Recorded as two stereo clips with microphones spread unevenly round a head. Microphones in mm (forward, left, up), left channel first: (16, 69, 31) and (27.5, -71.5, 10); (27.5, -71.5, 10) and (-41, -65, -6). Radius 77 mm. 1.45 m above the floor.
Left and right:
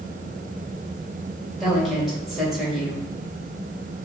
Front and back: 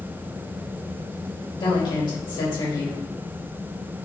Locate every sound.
1.6 s a woman speaking: 5° left, 2 m